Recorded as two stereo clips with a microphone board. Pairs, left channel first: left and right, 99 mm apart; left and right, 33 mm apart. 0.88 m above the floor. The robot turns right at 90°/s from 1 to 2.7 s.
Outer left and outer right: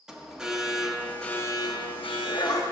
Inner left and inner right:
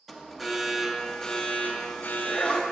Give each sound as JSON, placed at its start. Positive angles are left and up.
{"t": 0.1, "sound": "an alarm", "azimuth_deg": -5, "distance_m": 0.7}